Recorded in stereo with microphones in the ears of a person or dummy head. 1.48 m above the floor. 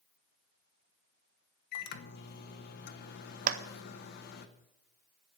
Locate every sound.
1.7 s a microwave: 55° left (ahead or behind), 1.0 m
3.5 s a clap: 45° right (ahead or behind), 0.6 m